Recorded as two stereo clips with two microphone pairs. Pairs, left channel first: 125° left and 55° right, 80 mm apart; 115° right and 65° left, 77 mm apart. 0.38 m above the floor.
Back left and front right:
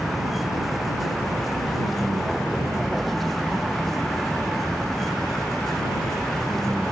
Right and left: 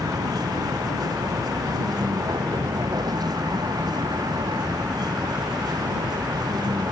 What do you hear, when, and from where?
0.0 s a vehicle: 35° left; by 6.9 s 40° left